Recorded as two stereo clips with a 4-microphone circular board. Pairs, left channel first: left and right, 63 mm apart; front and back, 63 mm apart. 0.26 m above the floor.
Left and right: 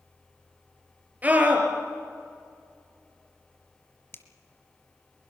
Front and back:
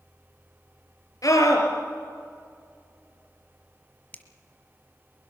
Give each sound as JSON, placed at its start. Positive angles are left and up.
{"t": 1.2, "sound": "a scream", "azimuth_deg": -25, "distance_m": 4.5}
{"t": 4.1, "sound": "a finger snap", "azimuth_deg": 55, "distance_m": 1.6}